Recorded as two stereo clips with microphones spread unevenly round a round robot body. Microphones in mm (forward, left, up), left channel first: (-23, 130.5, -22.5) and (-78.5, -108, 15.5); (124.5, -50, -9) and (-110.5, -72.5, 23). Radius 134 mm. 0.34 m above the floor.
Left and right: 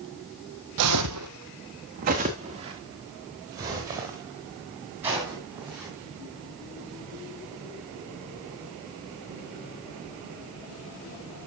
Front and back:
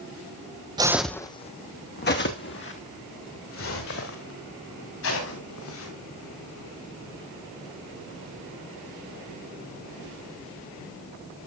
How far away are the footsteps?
About 0.9 m.